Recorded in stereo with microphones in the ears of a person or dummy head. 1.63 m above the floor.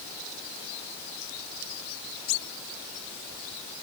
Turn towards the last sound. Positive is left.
No sound to turn to.